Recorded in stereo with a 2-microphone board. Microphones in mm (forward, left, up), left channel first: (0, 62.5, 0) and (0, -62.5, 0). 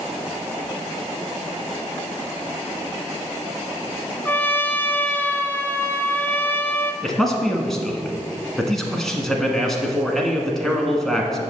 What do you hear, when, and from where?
4.2 s a trumpet: 15° left (ahead or behind), 0.6 m
7.0 s a man speaking: 5° left (ahead or behind), 1.2 m